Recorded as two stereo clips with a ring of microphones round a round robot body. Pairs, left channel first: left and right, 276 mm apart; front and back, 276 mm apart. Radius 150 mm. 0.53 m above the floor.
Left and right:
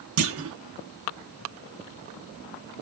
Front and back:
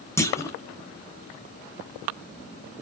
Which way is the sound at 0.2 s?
80° right.